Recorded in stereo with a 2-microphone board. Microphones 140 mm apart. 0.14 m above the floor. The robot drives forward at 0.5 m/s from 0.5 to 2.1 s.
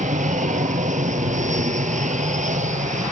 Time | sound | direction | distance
0.0 | an aircraft | 60° right (ahead or behind) | ?